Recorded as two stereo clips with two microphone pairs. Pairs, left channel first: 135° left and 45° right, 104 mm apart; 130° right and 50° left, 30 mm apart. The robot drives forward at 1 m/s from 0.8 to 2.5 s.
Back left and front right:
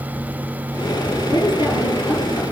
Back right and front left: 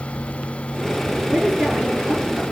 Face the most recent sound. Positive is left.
turn(degrees=105)